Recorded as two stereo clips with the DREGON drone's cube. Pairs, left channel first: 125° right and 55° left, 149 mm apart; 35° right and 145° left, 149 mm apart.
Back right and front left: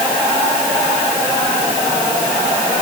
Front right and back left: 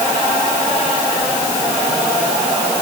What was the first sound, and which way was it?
Only background noise.